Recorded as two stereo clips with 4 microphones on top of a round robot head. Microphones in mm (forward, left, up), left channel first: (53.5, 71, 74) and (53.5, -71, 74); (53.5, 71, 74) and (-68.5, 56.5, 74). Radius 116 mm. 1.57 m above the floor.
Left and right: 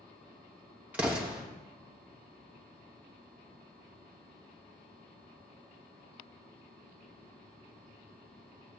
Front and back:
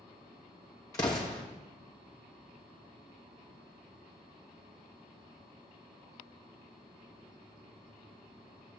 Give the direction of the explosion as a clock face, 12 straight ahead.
1 o'clock.